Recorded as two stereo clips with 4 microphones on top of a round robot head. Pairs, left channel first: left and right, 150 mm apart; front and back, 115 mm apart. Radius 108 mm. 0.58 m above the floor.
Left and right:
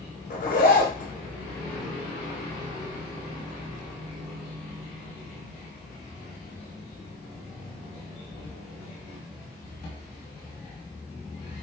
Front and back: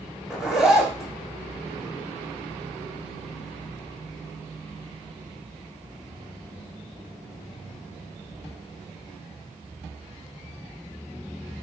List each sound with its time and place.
0.3 s a zipper: 95° left, 1.1 m